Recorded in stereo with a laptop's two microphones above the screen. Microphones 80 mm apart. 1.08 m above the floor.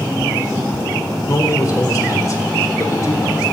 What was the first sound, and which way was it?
A man speaking, 45° left (ahead or behind).